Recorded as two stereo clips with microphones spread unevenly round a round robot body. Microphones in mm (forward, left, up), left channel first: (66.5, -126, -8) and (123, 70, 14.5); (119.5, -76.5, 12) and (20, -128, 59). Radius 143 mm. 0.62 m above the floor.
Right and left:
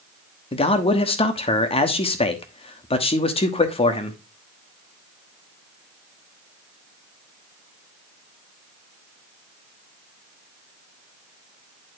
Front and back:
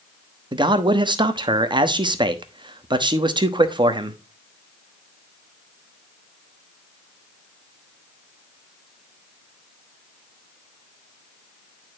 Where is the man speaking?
100° right, 1.1 m.